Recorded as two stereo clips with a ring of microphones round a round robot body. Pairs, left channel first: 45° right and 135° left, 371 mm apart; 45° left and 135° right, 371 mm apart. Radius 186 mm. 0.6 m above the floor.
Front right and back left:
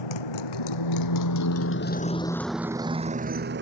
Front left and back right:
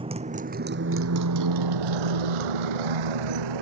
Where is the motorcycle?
60° right; by 3.6 s 165° right.